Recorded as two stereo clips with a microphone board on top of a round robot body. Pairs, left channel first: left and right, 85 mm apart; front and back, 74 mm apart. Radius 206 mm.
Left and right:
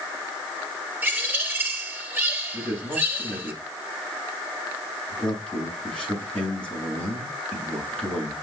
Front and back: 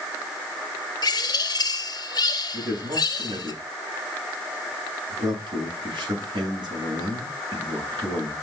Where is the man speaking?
165° left, 8 m.